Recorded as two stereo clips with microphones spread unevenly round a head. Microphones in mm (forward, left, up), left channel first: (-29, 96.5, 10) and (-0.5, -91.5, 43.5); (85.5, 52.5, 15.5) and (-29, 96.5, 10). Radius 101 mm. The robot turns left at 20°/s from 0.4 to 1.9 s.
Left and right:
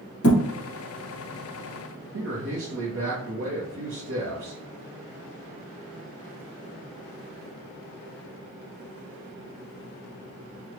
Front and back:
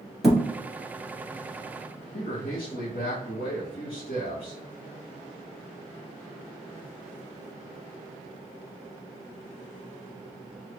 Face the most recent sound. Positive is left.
turn(degrees=-55)